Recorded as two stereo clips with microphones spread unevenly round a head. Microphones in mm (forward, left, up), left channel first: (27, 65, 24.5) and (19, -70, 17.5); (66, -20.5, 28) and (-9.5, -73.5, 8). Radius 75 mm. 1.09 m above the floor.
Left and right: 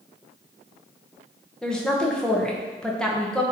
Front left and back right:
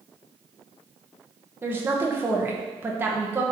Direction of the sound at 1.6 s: 175° left.